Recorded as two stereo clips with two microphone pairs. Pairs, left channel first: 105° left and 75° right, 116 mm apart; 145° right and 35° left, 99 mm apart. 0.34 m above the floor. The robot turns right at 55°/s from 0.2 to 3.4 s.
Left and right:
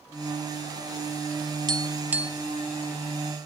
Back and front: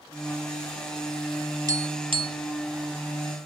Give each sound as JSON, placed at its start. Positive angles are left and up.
{"t": 1.7, "sound": "tapping", "azimuth_deg": -20, "distance_m": 0.6}